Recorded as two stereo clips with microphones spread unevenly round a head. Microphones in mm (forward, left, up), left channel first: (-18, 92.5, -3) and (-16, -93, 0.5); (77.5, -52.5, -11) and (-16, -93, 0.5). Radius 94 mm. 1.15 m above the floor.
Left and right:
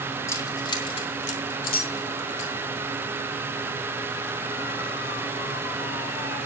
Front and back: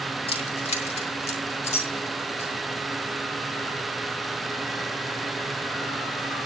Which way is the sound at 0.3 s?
15° left.